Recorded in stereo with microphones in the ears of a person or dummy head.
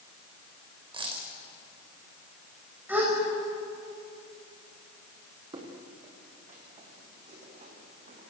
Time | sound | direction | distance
0.9 | a dropped coin | 25° right (ahead or behind) | 4 m
2.9 | a gasp | 10° right (ahead or behind) | 6 m
5.5 | footsteps | 25° right (ahead or behind) | 4.5 m